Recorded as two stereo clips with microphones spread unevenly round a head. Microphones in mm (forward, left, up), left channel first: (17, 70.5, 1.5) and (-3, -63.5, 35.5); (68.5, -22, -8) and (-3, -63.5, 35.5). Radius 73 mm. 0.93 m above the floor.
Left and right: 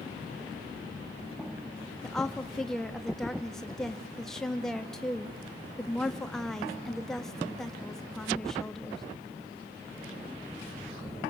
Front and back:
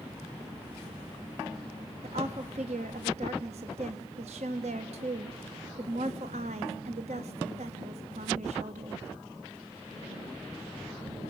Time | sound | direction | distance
2.0 | a woman speaking | 165° left | 1.1 m